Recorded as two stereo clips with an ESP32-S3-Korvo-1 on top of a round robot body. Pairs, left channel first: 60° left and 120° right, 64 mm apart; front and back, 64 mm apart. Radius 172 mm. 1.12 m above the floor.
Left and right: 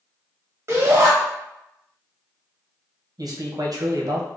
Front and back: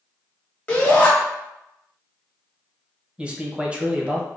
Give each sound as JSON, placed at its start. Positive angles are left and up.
{"t": 0.7, "sound": "a shout", "azimuth_deg": -70, "distance_m": 1.7}
{"t": 3.2, "sound": "a man speaking", "azimuth_deg": -105, "distance_m": 1.2}